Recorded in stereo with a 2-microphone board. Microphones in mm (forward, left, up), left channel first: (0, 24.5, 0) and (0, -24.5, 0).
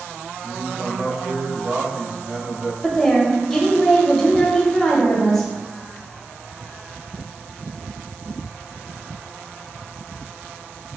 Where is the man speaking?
35° right (ahead or behind), 1.1 m.